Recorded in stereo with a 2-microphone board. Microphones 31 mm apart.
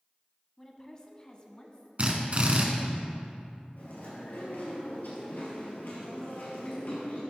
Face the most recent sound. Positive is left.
turn(degrees=75)  # may be behind; listen again after turning